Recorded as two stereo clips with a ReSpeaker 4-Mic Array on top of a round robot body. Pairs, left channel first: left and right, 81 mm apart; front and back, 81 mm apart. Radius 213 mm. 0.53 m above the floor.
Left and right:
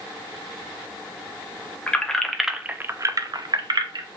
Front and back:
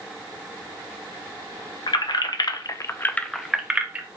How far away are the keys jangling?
About 0.9 m.